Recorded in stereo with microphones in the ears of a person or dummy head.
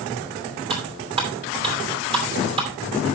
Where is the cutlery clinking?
25° right (ahead or behind), 3 m.